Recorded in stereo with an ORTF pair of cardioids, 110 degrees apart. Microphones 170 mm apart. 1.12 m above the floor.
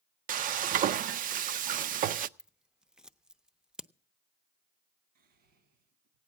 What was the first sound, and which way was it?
Frying, 55° right.